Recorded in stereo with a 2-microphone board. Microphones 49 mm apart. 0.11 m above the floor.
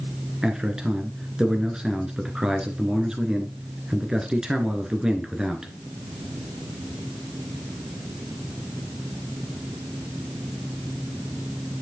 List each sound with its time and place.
0.4 s a man speaking: 15° right (ahead or behind), 1.7 m